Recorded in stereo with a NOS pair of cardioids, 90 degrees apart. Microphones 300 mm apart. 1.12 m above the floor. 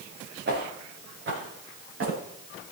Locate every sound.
0.5 s footsteps: 35° right, 6 m; by 2.2 s 45° right, 7 m